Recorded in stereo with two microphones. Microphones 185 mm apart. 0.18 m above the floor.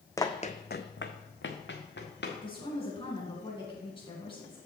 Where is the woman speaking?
30° left (ahead or behind), 2 m.